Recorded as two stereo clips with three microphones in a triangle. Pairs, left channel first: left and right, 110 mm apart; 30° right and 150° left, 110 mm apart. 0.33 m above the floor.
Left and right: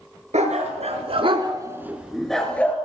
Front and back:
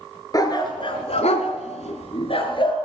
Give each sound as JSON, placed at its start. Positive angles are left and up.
{"t": 0.3, "sound": "a dog barking", "azimuth_deg": -85, "distance_m": 1.4}